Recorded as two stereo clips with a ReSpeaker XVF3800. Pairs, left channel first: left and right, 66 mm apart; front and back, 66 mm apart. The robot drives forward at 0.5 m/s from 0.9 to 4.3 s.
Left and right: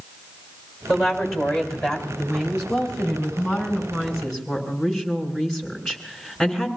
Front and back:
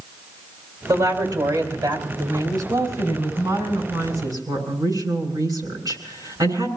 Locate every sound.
0.9 s a woman speaking: straight behind, 4 m